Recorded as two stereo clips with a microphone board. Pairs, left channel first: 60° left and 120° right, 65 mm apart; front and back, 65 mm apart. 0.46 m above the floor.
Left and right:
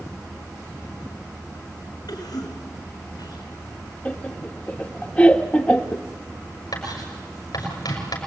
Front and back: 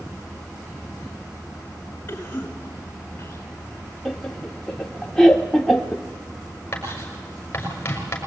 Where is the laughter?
70° left, 1.3 m.